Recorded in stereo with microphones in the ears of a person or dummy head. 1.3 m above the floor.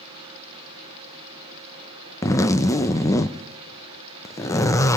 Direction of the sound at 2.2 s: 15° left (ahead or behind).